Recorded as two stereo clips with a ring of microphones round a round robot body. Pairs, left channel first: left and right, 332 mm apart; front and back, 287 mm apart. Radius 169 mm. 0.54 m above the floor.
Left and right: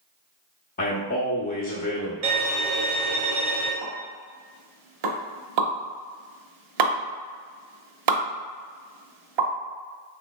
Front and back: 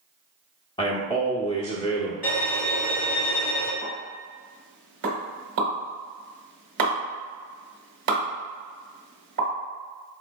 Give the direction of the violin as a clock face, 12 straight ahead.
3 o'clock.